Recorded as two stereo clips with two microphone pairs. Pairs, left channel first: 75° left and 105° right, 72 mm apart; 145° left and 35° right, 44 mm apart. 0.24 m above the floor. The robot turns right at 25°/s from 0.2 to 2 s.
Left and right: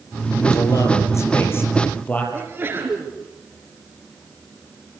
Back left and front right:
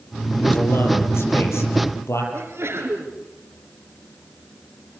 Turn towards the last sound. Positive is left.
turn(degrees=-45)